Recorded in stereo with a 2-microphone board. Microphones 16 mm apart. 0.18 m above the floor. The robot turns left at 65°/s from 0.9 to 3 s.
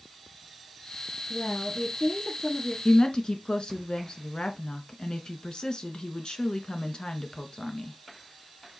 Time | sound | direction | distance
1.3 | a woman speaking | 140° left | 4.5 m
2.9 | a woman speaking | 50° left (ahead or behind) | 1.7 m